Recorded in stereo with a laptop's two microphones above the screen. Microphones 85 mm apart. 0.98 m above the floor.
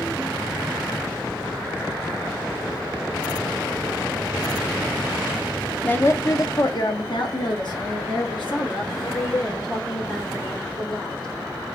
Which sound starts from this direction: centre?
A woman speaking, at 5.8 s.